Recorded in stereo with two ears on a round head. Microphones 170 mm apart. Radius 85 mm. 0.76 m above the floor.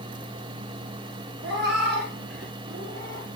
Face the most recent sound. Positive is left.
turn(degrees=-40)  # may be behind; listen again after turning